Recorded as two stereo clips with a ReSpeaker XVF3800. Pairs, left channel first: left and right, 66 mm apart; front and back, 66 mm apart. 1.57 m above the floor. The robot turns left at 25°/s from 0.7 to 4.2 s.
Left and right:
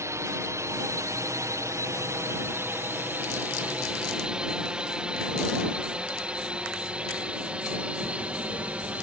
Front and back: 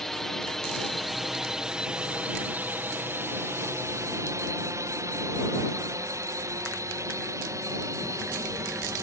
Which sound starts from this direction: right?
A drone, at 0.0 s.